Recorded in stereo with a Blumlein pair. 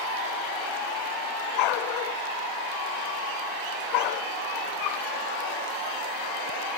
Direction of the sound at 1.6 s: 40° left.